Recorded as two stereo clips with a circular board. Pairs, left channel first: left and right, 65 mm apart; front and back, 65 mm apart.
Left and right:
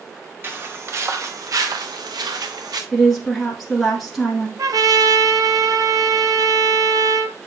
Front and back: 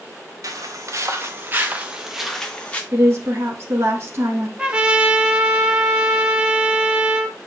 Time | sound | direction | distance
0.4 | footsteps | 145° right | 1.6 m
2.9 | a woman speaking | 175° left | 1.4 m
4.6 | a trumpet | 105° right | 0.9 m